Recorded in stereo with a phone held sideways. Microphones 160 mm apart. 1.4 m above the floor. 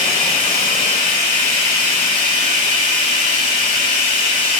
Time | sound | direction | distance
0.0 | running water | 50° right (ahead or behind) | 2 m